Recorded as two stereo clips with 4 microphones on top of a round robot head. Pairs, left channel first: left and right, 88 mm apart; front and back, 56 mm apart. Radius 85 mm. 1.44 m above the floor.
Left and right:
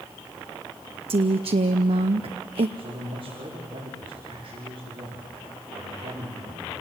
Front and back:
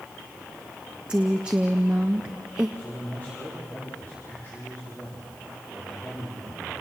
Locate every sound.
1.1 s a woman speaking: 105° right, 0.6 m
2.8 s a man speaking: 60° right, 5 m